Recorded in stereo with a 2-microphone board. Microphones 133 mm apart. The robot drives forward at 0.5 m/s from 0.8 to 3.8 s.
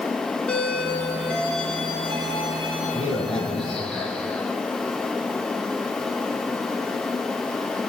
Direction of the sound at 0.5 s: 10° left (ahead or behind).